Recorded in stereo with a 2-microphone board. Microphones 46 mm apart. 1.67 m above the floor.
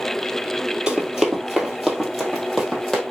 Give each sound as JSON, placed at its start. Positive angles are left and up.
{"t": 0.9, "sound": "running footsteps", "side_deg": -15, "distance_m": 1.8}